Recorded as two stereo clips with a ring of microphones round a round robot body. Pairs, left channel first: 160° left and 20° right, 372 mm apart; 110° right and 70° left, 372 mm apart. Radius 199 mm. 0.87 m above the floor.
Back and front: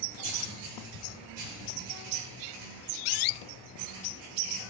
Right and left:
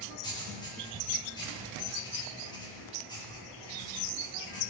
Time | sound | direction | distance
0.2 | writing | 35° right | 3.5 m